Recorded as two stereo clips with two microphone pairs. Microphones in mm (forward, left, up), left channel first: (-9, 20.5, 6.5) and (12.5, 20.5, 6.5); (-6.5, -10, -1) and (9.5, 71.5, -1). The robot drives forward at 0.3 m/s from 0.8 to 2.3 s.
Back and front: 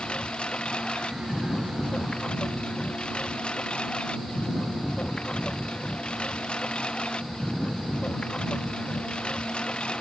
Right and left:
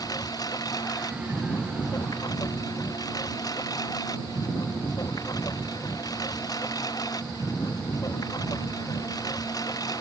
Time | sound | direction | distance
0.0 | a lawn mower | 140° right | ?